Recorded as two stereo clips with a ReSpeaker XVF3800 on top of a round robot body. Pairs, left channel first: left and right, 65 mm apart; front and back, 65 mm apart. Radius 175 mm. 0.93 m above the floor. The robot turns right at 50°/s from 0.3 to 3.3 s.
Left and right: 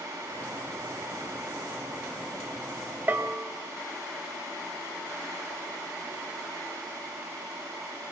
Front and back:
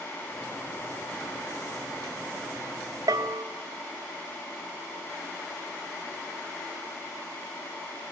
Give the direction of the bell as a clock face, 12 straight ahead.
5 o'clock.